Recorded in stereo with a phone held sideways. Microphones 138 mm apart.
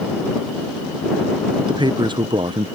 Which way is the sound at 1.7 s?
35° right (ahead or behind).